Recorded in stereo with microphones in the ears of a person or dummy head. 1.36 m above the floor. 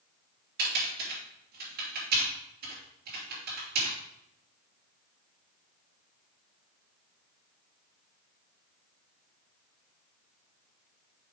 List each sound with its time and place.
0.6 s typing on a keyboard: 60° right (ahead or behind), 3.5 m